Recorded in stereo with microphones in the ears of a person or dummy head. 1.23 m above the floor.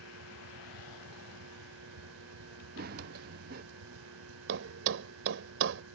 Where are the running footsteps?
50° right (ahead or behind).